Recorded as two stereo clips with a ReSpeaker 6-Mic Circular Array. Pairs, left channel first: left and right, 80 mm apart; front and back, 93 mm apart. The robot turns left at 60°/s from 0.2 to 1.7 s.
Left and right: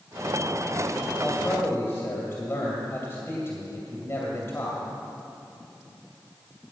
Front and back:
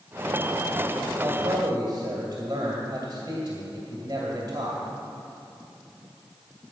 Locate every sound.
1.2 s a man speaking: 160° left, 2.0 m; by 4.8 s 130° left, 2.0 m